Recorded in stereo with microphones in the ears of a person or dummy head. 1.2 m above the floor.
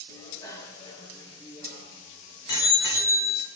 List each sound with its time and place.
0.1 s a bicycle bell: 15° left (ahead or behind), 4.5 m; by 3.5 s 35° left (ahead or behind), 3 m